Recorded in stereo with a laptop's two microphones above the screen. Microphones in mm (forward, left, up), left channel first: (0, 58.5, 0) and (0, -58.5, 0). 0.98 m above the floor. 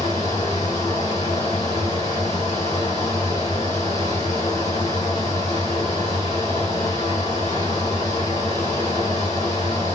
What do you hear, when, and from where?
0.0 s a fan: 85° left, 2 m